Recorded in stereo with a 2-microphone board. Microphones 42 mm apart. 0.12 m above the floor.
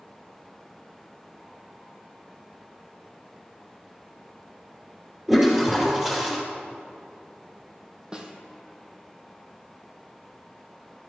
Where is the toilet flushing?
5° right (ahead or behind), 3 m.